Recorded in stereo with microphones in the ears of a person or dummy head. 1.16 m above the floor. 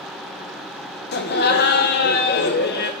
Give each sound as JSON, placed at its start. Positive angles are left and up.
{"t": 1.1, "sound": "laughter", "side_deg": 50, "distance_m": 1.0}